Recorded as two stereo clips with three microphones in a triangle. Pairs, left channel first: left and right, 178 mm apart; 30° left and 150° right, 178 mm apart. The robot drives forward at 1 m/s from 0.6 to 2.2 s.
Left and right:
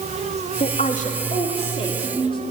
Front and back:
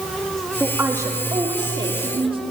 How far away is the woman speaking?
About 2 m.